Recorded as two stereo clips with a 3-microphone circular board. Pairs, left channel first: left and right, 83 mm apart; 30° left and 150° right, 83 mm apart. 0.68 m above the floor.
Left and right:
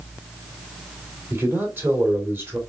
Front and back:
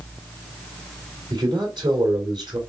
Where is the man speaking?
150° right, 2.5 m.